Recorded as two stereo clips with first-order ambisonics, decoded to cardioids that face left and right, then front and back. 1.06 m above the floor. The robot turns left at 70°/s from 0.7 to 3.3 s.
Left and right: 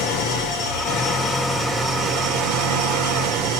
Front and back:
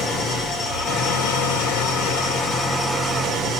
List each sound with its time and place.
0.0 s an engine running: 70° left, 3 m; by 3.6 s 115° right, 3 m